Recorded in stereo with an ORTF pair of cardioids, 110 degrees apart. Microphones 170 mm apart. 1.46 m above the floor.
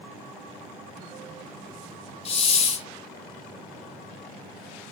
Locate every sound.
2.2 s a hiss: 35° left, 1.4 m